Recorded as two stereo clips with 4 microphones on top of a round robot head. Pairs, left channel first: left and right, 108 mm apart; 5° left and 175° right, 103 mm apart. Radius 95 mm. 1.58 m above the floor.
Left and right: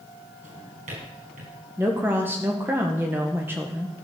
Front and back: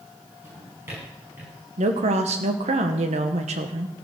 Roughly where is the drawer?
Right.